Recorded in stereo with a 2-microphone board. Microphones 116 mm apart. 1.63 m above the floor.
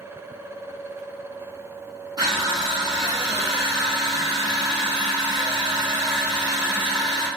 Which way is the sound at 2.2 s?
30° right (ahead or behind).